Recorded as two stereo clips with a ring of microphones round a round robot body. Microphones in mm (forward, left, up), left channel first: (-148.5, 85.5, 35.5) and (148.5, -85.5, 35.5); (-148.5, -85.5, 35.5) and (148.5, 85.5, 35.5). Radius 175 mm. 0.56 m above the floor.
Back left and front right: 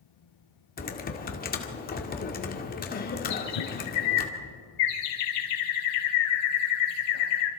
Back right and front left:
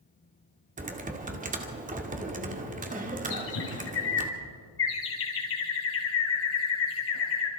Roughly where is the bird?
Behind left.